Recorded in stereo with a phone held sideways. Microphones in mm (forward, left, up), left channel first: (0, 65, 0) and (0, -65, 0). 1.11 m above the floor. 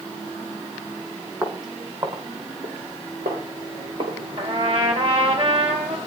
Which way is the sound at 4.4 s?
55° right (ahead or behind).